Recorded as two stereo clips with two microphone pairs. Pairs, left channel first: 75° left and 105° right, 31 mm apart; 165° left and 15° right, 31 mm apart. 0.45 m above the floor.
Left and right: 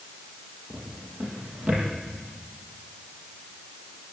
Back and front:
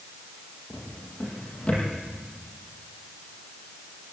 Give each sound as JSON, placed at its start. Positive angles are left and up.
{"t": 0.7, "sound": "a drawer", "azimuth_deg": -140, "distance_m": 6.5}